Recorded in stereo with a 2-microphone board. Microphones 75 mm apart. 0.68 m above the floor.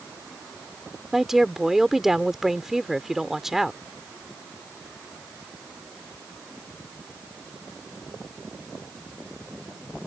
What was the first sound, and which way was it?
A woman speaking, 5° right (ahead or behind).